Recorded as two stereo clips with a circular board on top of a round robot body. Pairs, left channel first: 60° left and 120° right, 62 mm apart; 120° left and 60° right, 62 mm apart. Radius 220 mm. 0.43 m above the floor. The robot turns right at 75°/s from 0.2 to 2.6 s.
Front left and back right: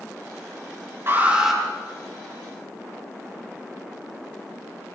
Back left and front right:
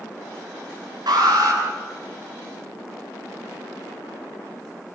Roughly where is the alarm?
Right.